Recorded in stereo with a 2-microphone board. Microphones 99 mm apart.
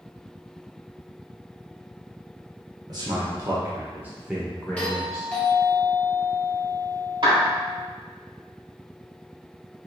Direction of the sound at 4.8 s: 10° left (ahead or behind).